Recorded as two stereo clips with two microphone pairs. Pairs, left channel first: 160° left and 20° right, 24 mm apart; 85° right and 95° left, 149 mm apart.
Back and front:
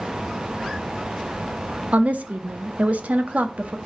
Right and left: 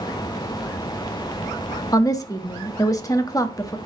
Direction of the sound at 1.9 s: 20° right.